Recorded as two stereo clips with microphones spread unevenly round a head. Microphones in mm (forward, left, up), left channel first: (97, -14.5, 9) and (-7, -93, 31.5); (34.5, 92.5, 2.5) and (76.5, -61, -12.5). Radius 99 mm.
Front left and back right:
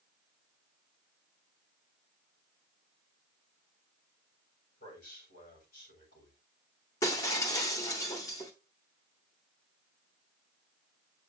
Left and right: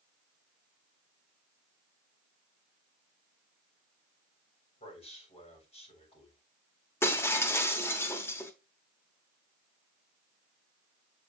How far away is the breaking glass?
About 1.0 m.